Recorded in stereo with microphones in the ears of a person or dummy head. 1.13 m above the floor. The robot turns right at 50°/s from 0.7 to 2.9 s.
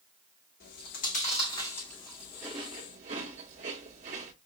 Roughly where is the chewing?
Left.